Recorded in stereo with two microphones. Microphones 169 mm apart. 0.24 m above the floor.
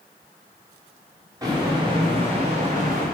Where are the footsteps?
20° right (ahead or behind), 3 m; by 3.0 s 55° right (ahead or behind), 2.5 m.